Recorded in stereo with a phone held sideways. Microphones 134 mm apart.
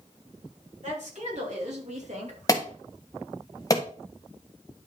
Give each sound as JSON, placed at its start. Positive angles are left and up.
{"t": 0.8, "sound": "a woman speaking", "side_deg": -60, "distance_m": 4.5}
{"t": 2.5, "sound": "an alarm", "side_deg": 25, "distance_m": 1.4}